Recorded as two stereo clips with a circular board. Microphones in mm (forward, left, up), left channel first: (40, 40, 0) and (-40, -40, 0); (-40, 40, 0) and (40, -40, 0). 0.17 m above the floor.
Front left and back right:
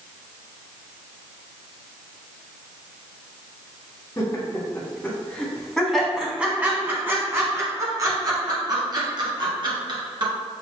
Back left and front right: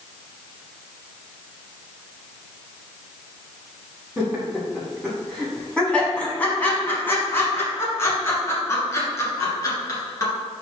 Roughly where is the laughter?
Ahead left.